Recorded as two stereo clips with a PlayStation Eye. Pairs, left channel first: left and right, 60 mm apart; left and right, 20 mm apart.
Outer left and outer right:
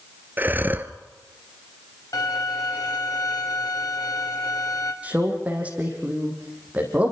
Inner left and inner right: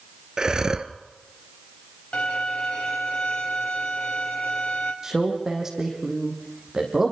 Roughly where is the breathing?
Right.